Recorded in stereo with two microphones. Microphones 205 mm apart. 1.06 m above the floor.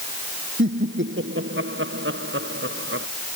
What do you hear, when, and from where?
0.6 s laughter: 70° right (ahead or behind); by 3.1 s 80° right